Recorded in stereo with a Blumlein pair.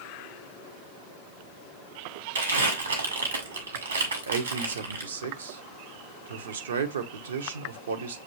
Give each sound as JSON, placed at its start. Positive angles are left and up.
{"t": 2.4, "sound": "crumpling", "azimuth_deg": -70, "distance_m": 1.7}
{"t": 4.3, "sound": "a man speaking", "azimuth_deg": -65, "distance_m": 0.8}